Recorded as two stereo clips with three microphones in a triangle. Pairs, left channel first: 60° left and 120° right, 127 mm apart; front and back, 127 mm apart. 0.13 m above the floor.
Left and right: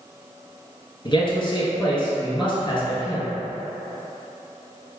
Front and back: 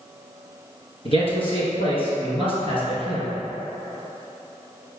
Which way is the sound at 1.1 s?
25° left.